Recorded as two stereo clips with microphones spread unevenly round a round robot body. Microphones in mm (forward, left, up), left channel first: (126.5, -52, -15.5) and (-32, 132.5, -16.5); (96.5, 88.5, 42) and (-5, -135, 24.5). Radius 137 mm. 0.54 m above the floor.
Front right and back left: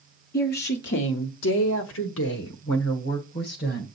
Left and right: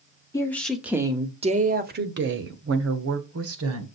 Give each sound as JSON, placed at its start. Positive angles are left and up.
{"t": 0.3, "sound": "a woman speaking", "azimuth_deg": -10, "distance_m": 1.1}